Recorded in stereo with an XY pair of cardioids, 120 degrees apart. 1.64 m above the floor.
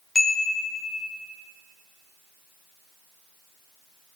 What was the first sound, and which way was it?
A chime, 20° left.